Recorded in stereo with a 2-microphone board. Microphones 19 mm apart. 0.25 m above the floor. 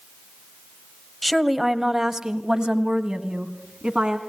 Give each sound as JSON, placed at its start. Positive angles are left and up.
{"t": 1.2, "sound": "a woman speaking", "side_deg": 0, "distance_m": 1.0}